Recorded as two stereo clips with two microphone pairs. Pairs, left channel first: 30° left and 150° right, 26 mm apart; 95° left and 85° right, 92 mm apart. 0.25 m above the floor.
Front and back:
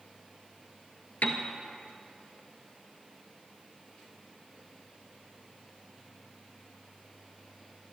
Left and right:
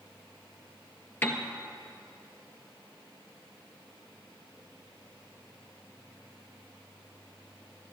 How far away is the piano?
About 1.4 m.